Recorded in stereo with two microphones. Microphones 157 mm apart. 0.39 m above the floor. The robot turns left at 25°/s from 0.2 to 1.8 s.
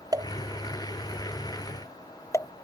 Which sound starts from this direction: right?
A pop, at 0.1 s.